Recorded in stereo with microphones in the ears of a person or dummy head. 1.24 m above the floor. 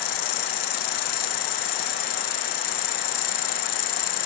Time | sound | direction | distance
0.0 | an insect | 50° left (ahead or behind) | ?